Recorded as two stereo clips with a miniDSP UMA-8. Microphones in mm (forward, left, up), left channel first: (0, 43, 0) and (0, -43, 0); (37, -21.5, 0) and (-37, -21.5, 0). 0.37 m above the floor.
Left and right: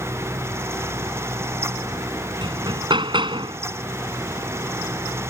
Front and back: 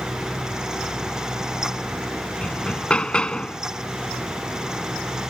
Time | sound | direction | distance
2.4 | hammering | 75° right | ?